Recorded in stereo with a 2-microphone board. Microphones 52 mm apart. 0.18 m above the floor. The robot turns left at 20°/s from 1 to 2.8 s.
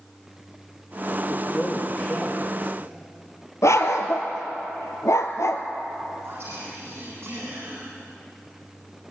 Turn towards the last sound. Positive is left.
turn(degrees=-45)  # may be behind; listen again after turning